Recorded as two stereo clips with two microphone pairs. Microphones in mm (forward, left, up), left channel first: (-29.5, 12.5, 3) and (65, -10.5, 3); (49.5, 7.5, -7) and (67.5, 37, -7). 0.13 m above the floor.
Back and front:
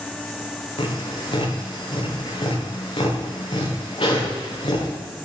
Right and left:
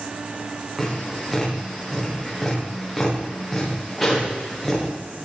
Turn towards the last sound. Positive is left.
turn(degrees=155)